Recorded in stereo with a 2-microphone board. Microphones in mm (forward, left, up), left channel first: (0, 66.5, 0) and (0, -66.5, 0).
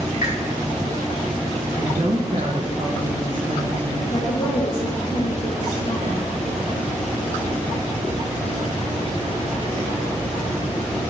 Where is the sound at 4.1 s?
70° left (ahead or behind), 1.5 m.